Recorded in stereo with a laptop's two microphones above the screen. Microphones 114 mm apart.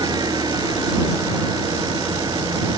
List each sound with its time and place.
0.0 s an engine running: 35° right (ahead or behind)